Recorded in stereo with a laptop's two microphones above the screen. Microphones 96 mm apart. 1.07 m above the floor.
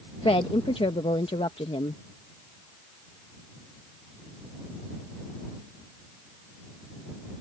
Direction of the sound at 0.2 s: 70° left (ahead or behind).